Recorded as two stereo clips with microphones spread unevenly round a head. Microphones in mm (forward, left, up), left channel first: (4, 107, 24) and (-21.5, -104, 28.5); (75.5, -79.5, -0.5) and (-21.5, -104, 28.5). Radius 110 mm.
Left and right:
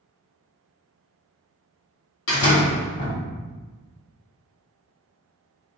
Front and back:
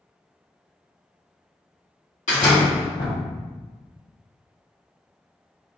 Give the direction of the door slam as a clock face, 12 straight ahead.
10 o'clock.